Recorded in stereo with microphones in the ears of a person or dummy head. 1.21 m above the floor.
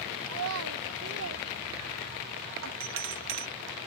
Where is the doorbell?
65° right (ahead or behind).